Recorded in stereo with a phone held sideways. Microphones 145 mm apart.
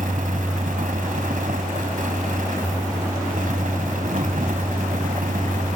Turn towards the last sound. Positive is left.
turn(degrees=-65)  # may be behind; listen again after turning